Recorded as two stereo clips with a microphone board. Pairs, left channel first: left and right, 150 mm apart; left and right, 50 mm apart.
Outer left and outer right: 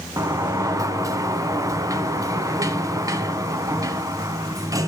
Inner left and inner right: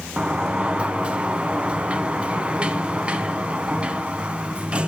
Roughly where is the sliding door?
Right.